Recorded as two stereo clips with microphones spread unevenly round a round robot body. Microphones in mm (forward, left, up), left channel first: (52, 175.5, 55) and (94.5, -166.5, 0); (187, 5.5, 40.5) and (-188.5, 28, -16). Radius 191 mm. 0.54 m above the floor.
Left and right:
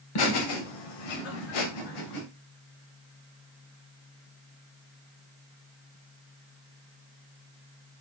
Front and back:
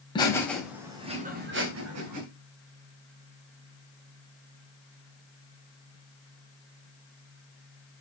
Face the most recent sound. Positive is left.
turn(degrees=140)